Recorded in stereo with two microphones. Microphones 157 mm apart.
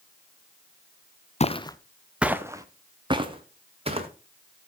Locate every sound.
1.4 s footsteps: 45° left (ahead or behind), 0.7 m; by 4.1 s 40° right (ahead or behind), 2.5 m